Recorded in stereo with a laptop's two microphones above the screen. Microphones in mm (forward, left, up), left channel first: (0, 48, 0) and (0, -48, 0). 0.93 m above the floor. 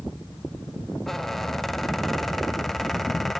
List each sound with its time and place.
1.1 s a squeak: 5° left (ahead or behind), 0.9 m